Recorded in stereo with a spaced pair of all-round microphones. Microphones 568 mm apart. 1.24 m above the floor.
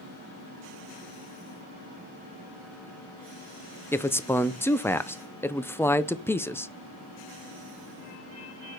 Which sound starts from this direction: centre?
A man speaking, at 3.9 s.